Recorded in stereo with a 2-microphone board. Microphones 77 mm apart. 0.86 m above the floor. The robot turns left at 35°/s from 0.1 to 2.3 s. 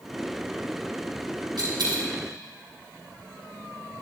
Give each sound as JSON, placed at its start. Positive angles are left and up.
{"t": 1.6, "sound": "a dropped coin", "side_deg": -75, "distance_m": 3.0}